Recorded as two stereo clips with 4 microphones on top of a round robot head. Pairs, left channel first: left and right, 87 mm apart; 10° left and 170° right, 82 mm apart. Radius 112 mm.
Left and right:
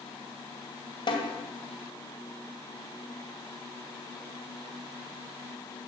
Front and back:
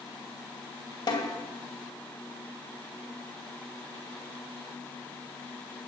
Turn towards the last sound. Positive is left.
turn(degrees=45)